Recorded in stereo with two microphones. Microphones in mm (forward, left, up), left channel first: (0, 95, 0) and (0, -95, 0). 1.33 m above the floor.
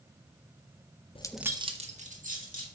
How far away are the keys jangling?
About 0.5 m.